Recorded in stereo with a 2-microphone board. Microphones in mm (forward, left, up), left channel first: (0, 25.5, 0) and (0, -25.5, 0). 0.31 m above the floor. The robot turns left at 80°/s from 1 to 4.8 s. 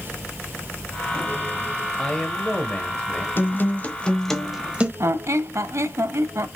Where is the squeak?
65° right (ahead or behind), 0.6 m.